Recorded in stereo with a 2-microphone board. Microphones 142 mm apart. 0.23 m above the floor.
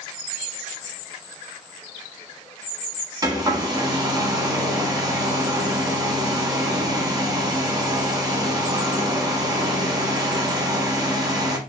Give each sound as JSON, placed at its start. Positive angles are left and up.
{"t": 3.2, "sound": "a hair dryer", "side_deg": -30, "distance_m": 0.7}